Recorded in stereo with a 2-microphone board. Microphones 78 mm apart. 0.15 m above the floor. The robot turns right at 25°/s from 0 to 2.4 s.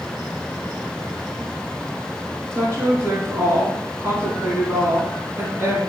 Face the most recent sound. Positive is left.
turn(degrees=-30)  # may be behind; listen again after turning